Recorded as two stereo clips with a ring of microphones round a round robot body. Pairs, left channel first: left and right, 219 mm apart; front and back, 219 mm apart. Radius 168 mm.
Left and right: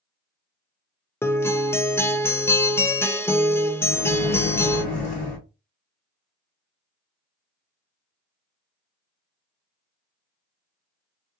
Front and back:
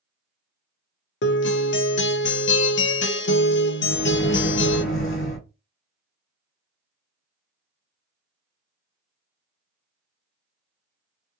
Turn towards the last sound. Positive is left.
turn(degrees=35)